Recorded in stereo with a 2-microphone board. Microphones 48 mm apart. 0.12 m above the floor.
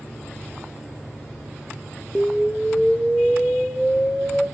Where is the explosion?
10° left (ahead or behind), 1.7 m.